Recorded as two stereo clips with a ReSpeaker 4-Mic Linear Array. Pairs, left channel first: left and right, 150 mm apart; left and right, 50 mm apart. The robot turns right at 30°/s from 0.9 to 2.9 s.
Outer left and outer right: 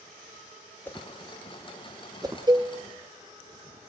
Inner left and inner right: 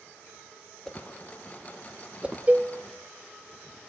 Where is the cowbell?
30° right (ahead or behind), 0.6 m; by 2.7 s 35° right (ahead or behind), 0.6 m.